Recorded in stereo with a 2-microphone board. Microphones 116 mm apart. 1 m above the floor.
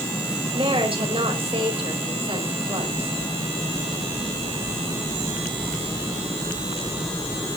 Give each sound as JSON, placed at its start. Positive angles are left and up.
{"t": 0.5, "sound": "a woman speaking", "side_deg": -50, "distance_m": 5.0}